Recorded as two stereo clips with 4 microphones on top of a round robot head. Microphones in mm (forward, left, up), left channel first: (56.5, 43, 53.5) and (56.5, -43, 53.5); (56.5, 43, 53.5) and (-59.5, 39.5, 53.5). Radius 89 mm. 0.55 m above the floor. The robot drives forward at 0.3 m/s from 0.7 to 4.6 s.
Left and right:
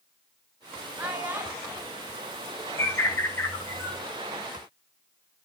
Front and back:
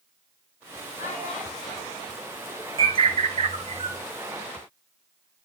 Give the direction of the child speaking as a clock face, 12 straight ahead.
1 o'clock.